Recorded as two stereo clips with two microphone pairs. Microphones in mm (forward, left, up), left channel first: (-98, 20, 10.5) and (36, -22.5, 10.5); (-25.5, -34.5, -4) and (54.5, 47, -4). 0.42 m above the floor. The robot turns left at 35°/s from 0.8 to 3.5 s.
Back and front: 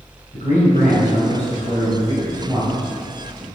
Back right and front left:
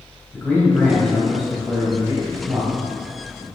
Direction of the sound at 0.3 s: 150° left.